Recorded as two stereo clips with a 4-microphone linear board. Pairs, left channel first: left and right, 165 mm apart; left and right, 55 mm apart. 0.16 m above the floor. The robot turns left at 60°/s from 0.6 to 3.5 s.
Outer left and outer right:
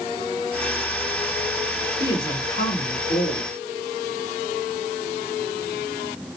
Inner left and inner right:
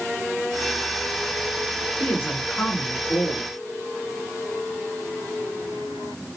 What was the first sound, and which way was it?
A woman speaking, 155° left.